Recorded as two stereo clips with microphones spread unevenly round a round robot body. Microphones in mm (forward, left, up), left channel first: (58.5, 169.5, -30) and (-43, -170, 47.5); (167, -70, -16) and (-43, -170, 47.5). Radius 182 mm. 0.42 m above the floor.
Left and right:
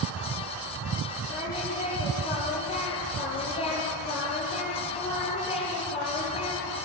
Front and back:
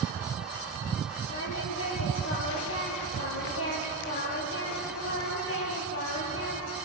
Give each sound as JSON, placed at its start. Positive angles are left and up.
{"t": 1.3, "sound": "singing", "azimuth_deg": -5, "distance_m": 5.5}